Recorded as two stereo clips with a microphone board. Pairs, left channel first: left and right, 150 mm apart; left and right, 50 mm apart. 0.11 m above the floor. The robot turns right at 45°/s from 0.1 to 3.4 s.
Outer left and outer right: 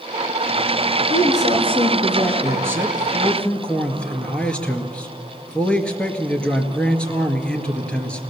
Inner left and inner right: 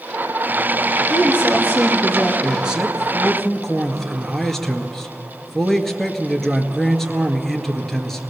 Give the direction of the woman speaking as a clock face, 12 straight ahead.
2 o'clock.